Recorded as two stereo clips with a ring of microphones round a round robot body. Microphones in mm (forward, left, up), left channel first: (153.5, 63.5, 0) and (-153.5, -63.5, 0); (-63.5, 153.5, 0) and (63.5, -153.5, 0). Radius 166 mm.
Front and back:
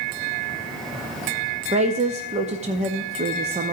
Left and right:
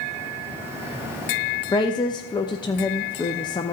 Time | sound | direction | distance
1.7 | a woman speaking | 165° left | 0.5 m